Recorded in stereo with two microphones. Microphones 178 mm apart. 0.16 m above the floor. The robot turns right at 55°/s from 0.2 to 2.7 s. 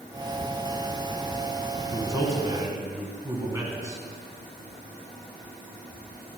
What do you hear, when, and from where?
1.9 s a man speaking: 20° right (ahead or behind), 1.0 m